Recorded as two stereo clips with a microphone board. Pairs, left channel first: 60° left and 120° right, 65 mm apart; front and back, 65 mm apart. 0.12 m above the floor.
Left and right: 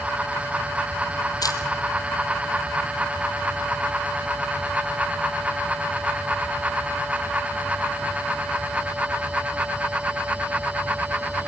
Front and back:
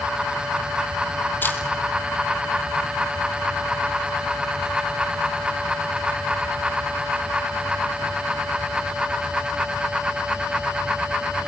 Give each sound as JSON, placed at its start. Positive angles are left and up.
{"t": 1.4, "sound": "a camera shutter", "azimuth_deg": 60, "distance_m": 2.5}